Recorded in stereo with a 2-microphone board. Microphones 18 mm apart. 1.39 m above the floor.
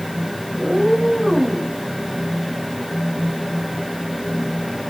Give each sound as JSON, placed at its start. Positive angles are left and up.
{"t": 0.6, "sound": "a cat meowing", "side_deg": -35, "distance_m": 3.5}